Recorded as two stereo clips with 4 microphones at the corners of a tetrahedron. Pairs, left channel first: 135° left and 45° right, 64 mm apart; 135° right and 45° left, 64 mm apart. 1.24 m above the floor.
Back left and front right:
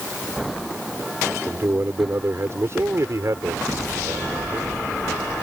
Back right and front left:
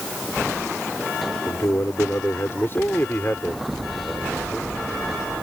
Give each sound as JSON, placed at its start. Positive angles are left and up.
{"t": 1.5, "sound": "a man speaking", "azimuth_deg": -95}